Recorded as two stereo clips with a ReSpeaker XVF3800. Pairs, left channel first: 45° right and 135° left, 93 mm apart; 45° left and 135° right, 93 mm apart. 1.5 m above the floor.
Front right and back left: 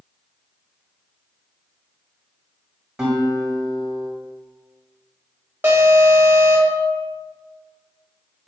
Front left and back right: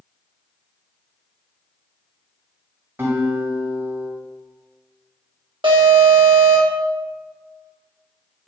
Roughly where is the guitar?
Behind right.